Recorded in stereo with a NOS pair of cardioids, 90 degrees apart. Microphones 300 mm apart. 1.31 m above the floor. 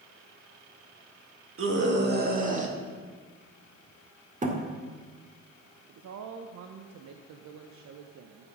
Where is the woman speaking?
65° right, 0.8 m.